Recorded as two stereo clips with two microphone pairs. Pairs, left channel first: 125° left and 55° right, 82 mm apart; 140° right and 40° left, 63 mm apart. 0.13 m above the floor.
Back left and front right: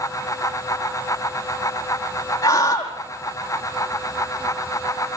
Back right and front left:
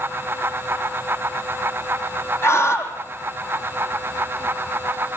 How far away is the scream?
About 4.5 m.